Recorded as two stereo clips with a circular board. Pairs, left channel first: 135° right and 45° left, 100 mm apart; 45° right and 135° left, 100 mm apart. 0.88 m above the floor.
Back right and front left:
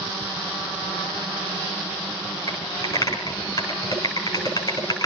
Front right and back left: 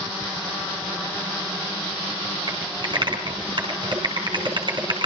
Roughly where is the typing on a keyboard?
Behind.